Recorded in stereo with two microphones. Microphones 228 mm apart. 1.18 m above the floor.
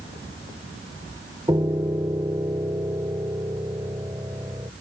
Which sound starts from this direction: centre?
A piano, at 1.5 s.